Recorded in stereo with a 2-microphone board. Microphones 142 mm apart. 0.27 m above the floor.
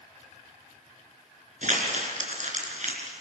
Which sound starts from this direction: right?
Crumpling, at 1.6 s.